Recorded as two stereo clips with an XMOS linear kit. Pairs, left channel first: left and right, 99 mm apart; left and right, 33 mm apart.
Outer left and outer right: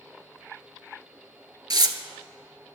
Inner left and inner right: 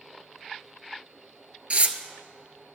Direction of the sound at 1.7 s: 45° right (ahead or behind).